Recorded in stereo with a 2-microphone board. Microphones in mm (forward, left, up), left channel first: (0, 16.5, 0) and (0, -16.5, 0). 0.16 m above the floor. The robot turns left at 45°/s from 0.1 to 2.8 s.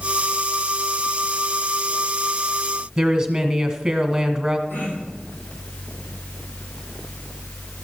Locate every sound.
3.0 s a woman speaking: 20° right (ahead or behind), 1.4 m
4.7 s throat clearing: 70° left (ahead or behind), 5.5 m